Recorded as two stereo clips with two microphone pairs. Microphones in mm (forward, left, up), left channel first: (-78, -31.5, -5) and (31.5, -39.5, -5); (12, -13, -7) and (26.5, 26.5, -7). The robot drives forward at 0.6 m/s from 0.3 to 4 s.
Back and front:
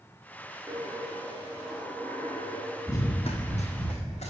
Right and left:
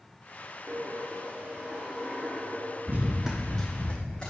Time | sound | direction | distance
0.7 | a dropped coin | 35° left | 0.9 m
2.9 | running footsteps | 110° left | 0.7 m